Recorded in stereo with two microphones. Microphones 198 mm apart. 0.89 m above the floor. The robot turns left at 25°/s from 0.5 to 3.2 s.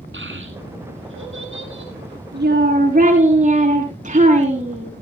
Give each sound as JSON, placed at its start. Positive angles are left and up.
{"t": 0.1, "sound": "a child speaking", "azimuth_deg": -75, "distance_m": 7.5}